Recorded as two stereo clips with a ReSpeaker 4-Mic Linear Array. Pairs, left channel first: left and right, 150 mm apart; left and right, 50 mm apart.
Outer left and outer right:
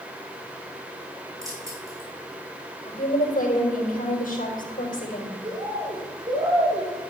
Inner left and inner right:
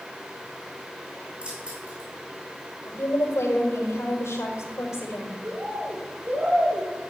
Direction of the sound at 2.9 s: 70° left (ahead or behind).